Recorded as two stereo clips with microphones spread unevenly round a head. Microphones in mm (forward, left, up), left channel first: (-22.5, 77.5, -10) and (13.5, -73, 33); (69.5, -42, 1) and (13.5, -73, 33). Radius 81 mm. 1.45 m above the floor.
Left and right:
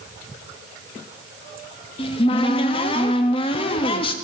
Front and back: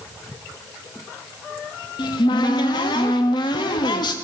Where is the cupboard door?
40° left, 0.9 m.